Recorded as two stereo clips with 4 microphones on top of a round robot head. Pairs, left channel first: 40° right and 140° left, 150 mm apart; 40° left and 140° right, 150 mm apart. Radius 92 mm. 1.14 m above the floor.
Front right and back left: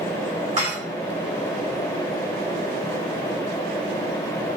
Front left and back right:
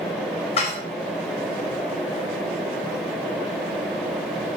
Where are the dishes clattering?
90° left, 4 m.